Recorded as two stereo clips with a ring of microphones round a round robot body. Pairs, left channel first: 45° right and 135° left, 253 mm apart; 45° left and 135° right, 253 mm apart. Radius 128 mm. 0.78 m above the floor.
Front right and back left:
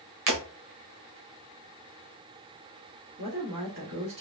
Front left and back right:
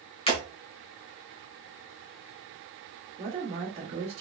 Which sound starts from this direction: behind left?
Breaking glass, at 0.3 s.